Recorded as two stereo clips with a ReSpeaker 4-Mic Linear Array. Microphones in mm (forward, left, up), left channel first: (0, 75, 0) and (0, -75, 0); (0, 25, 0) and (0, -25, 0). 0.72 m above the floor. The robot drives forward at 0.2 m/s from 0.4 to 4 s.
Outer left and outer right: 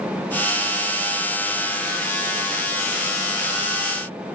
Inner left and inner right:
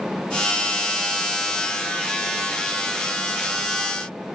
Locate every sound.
Only background noise.